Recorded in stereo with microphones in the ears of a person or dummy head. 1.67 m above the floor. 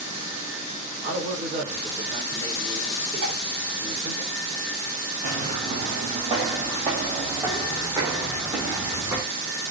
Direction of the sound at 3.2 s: 65° right (ahead or behind).